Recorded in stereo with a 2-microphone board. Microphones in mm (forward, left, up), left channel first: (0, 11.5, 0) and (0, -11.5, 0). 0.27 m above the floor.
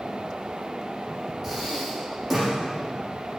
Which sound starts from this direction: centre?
Breathing, at 1.4 s.